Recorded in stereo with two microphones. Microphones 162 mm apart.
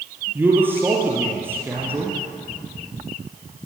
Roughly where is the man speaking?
Centre.